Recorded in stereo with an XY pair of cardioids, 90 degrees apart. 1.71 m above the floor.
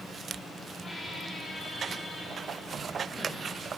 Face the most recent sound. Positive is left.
turn(degrees=35)